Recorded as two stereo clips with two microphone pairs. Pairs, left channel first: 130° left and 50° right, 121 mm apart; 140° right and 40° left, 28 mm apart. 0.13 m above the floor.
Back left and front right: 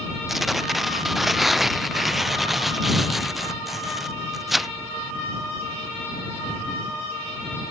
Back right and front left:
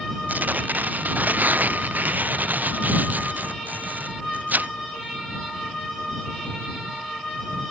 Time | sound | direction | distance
0.3 | tearing paper | 40° left | ?